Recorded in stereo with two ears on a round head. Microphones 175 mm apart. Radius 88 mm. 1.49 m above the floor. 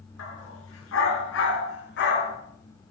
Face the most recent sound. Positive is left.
turn(degrees=55)  # may be behind; listen again after turning